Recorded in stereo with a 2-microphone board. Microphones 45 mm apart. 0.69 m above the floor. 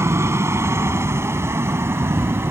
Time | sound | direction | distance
0.0 | a helicopter | 75° right (ahead or behind) | ?